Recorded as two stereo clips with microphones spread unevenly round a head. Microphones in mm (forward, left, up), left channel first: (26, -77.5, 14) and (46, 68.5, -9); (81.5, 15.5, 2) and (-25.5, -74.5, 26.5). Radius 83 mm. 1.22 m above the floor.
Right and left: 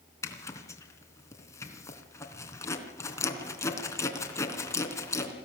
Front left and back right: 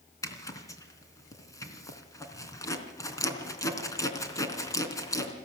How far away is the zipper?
About 3 m.